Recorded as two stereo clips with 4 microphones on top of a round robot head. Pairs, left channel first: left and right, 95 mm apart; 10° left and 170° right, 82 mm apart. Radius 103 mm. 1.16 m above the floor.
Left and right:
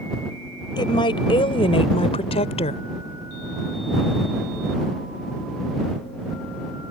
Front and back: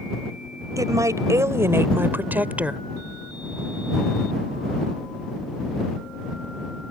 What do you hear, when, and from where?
0.8 s a woman speaking: 140° left; by 2.8 s 110° left